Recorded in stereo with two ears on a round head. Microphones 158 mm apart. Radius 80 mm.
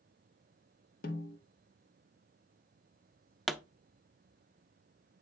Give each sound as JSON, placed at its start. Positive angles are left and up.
{"t": 1.0, "sound": "a snare drum", "side_deg": 55, "distance_m": 1.6}
{"t": 3.5, "sound": "a pop", "side_deg": 0, "distance_m": 0.5}